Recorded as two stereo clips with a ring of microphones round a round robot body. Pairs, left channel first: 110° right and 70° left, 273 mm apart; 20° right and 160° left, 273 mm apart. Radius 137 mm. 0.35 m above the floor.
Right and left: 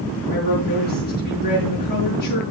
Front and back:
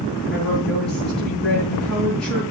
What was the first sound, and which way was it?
A woman speaking, 115° right.